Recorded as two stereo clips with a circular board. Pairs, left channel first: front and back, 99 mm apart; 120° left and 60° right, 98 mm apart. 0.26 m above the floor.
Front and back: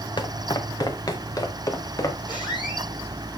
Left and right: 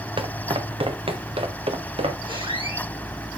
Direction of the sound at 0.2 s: 35° right.